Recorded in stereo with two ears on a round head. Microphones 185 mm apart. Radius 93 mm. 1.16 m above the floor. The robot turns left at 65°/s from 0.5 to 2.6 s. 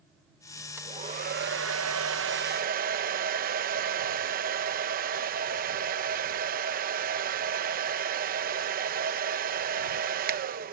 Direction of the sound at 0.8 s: 15° right.